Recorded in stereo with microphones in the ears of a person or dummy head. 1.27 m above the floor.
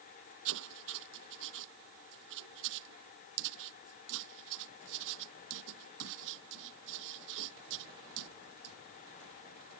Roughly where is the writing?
Right.